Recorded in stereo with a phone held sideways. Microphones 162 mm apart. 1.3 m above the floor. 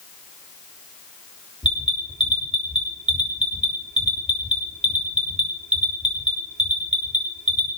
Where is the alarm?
45° right (ahead or behind), 3.5 m.